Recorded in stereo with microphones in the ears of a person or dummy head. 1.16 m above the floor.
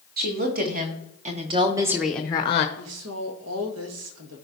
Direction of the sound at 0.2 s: 45° right (ahead or behind).